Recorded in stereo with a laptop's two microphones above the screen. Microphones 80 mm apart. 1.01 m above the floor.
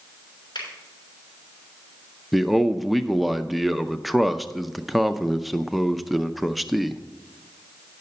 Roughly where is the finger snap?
Left.